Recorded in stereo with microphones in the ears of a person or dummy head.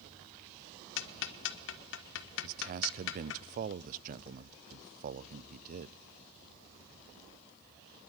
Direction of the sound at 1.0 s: 75° left (ahead or behind).